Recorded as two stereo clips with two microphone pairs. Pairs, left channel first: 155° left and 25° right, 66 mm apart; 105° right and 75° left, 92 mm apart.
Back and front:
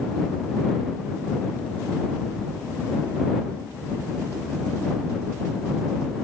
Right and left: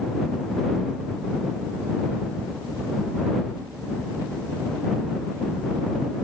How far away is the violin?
No violin in this recording.